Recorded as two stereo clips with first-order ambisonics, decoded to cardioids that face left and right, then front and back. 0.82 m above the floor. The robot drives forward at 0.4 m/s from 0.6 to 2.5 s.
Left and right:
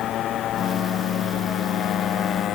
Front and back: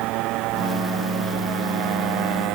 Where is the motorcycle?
145° left.